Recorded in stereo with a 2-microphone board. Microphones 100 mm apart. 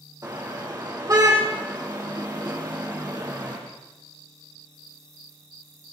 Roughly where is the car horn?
Right.